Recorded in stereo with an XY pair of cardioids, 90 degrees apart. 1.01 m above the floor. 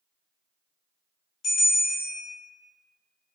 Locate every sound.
1.4 s a bell: 65° left, 0.7 m